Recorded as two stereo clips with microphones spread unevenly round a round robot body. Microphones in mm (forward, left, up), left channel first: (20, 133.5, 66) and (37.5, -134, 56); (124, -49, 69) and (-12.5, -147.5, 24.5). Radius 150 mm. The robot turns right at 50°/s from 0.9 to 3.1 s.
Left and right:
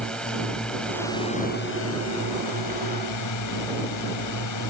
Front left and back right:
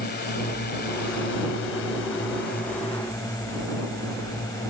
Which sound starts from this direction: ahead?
A drone, at 0.0 s.